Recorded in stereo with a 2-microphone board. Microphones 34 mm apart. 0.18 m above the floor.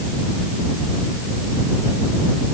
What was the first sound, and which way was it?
Only background noise.